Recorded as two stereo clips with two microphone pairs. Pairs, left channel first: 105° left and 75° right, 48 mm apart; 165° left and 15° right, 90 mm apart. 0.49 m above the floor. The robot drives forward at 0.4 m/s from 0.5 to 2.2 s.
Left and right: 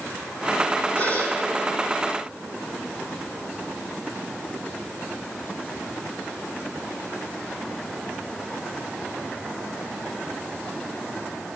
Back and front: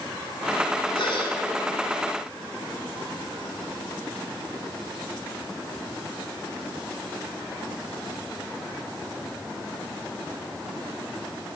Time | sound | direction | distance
0.9 | a gasp | 150° left | 2.5 m